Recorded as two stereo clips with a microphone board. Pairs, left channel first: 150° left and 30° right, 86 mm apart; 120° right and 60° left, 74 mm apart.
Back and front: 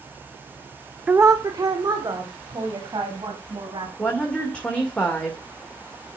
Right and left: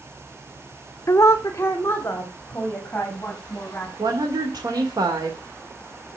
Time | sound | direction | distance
1.1 | a woman speaking | 95° right | 0.7 m
4.0 | a woman speaking | 75° left | 2.5 m